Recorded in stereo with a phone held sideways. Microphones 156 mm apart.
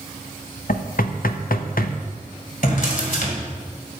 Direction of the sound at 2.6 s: 70° left (ahead or behind).